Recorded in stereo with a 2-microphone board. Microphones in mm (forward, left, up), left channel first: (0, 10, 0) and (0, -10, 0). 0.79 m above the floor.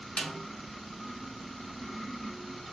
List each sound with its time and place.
0.2 s a snare drum: 75° left (ahead or behind), 0.6 m